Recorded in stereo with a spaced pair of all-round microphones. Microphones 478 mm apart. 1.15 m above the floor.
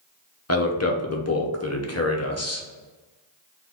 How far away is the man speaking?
About 0.7 m.